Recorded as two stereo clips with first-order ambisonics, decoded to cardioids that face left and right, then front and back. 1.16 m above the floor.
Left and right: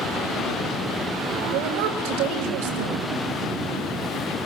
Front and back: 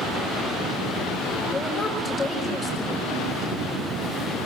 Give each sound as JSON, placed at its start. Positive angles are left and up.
{"t": 1.5, "sound": "a woman speaking", "azimuth_deg": -80, "distance_m": 5.5}